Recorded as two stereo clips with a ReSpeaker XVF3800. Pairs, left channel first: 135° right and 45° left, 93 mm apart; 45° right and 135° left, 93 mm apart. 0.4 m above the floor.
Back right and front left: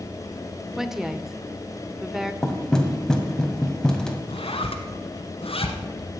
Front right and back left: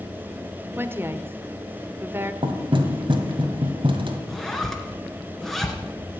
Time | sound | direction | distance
0.8 | a woman speaking | 125° left | 0.8 m
2.4 | knocking | 145° left | 1.6 m
4.3 | a zipper | 135° right | 1.5 m